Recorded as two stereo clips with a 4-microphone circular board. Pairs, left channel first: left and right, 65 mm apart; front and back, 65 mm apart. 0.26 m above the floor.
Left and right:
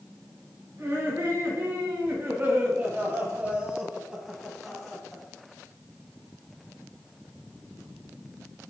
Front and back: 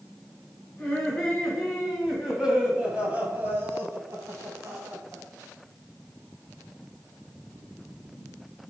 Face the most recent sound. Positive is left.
turn(degrees=175)